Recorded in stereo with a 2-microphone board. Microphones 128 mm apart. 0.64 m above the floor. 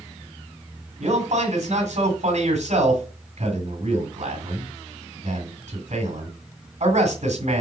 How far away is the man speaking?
About 2.5 m.